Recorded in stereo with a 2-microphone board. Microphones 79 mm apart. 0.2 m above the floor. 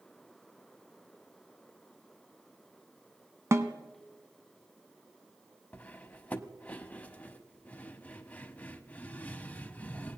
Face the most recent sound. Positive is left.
turn(degrees=20)  # may be behind; listen again after turning